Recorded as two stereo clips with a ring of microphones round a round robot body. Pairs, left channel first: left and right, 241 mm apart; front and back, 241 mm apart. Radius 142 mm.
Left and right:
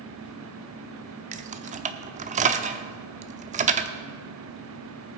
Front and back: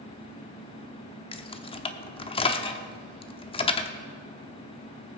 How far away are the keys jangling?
About 0.8 m.